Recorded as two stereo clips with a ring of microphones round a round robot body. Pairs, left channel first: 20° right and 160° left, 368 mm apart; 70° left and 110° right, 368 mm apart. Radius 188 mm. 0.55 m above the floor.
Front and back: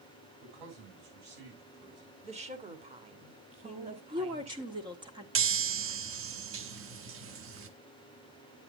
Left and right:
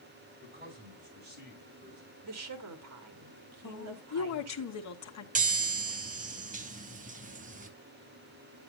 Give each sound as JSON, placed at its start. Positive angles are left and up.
{"t": 0.4, "sound": "a man speaking", "azimuth_deg": 180, "distance_m": 6.0}
{"t": 2.2, "sound": "a woman speaking", "azimuth_deg": -135, "distance_m": 1.5}
{"t": 3.6, "sound": "a woman speaking", "azimuth_deg": 85, "distance_m": 1.5}
{"t": 5.3, "sound": "a chime", "azimuth_deg": -170, "distance_m": 1.0}